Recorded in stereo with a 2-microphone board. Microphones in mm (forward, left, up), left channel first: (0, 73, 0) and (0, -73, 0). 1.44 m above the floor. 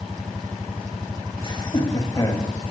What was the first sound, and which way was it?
Laughter, 35° left (ahead or behind).